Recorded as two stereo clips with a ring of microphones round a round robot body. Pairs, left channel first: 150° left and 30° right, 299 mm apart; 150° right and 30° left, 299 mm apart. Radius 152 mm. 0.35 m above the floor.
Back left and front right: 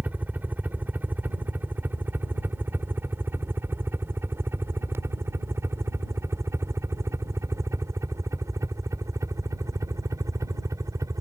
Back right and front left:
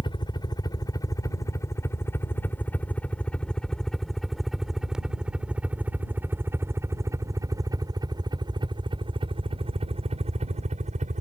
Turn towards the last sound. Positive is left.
turn(degrees=35)